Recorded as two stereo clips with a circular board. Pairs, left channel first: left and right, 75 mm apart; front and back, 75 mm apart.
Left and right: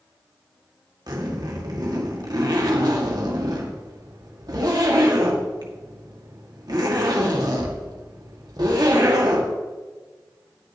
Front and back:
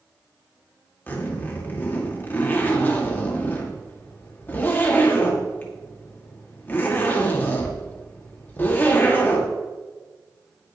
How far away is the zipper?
About 1.9 m.